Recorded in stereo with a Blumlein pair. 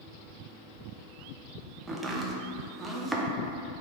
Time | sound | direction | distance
1.9 | chopping | 10° right | 0.5 m